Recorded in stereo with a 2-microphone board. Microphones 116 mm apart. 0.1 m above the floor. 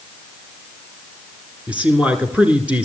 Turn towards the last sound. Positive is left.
turn(degrees=-10)  # may be behind; listen again after turning